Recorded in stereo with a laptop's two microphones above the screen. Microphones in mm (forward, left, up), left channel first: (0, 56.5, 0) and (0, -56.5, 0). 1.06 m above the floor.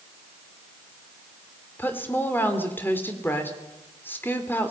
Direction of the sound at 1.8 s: 15° left (ahead or behind).